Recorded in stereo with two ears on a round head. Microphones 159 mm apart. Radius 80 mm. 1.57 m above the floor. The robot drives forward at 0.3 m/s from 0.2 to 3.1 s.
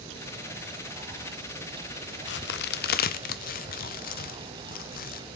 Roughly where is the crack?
Left.